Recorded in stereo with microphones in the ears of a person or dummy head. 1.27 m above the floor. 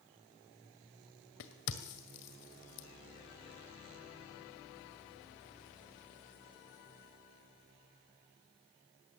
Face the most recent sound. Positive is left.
turn(degrees=60)  # may be behind; listen again after turning